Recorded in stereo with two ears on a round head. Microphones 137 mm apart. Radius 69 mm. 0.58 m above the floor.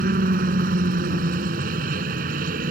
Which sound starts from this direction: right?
A helicopter, at 0.0 s.